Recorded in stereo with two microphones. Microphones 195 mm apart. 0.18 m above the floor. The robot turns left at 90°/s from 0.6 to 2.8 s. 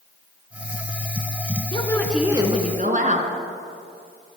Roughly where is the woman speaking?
Ahead left.